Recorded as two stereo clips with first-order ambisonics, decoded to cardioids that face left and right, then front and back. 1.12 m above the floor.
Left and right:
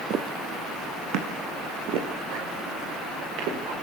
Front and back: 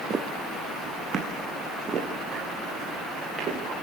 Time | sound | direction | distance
0.1 | footsteps | 120° right | 1.4 m